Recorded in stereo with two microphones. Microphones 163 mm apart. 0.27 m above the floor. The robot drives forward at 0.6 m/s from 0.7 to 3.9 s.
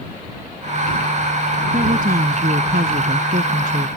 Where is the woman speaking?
60° right (ahead or behind); by 3.9 s 55° right (ahead or behind).